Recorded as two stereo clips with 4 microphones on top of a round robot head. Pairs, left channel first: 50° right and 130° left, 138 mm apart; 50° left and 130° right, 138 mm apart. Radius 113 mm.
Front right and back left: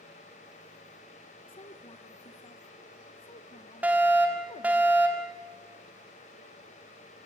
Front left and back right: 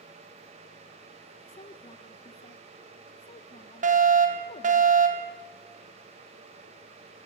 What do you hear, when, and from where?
1.5 s a woman speaking: straight ahead, 1.1 m
3.8 s a fire alarm: 150° right, 4 m